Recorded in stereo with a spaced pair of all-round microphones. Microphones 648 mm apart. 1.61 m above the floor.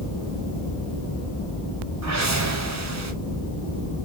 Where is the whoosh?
30° right (ahead or behind), 0.5 m.